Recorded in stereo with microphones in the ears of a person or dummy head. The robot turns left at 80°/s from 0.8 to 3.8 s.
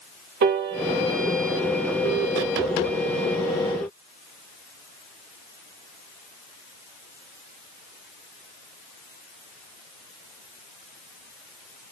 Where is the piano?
50° right (ahead or behind), 0.5 m; by 1.1 s 60° right (ahead or behind), 0.5 m.